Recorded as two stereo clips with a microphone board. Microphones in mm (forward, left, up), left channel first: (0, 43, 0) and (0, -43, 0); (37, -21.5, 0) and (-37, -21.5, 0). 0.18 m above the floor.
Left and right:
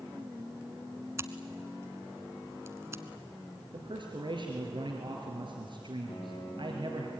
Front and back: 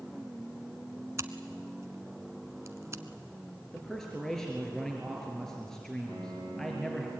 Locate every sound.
1.2 s scissors: 140° right, 1.1 m
3.7 s a man speaking: 85° right, 3 m
6.1 s a piano: 65° left, 5 m